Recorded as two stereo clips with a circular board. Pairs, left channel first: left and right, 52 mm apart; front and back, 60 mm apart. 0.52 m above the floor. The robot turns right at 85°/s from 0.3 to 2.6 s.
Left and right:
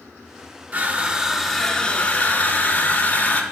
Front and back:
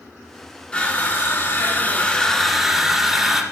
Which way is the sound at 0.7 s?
60° right.